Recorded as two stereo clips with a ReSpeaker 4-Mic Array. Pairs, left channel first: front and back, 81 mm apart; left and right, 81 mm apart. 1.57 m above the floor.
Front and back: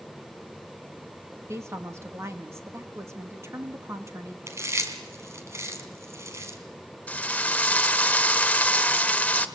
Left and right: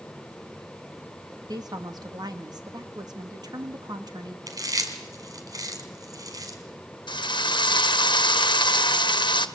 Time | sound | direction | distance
1.5 | a woman speaking | 125° right | 2.5 m
4.5 | chewing | 130° right | 3.5 m
7.1 | a drill | 75° left | 1.5 m